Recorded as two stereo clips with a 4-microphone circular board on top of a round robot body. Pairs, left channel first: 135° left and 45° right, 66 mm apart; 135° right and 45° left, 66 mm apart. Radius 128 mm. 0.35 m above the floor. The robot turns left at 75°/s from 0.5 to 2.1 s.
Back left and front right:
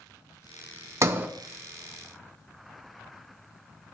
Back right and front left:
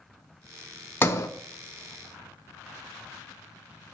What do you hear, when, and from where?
1.0 s a sliding door: 85° right, 1.0 m; by 1.3 s 105° right, 1.0 m